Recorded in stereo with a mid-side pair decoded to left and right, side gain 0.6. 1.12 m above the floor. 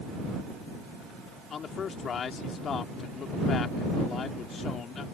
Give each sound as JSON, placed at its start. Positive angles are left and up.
{"t": 1.5, "sound": "a man speaking", "azimuth_deg": 40}